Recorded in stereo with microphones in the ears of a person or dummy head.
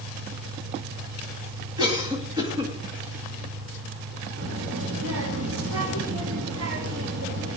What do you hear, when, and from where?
0.0 s an engine running: 55° right (ahead or behind), 2 m
1.8 s a cough: 15° right (ahead or behind), 2.5 m
4.4 s a child speaking: 70° right (ahead or behind), 2.5 m